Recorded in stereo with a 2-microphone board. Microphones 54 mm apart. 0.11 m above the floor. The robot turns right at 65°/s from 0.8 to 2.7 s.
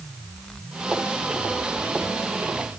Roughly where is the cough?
I don't hear a cough.